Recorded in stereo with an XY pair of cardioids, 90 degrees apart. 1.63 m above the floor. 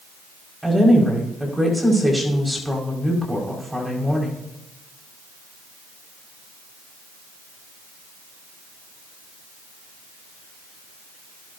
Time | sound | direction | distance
0.6 | a woman speaking | 10° right | 5.5 m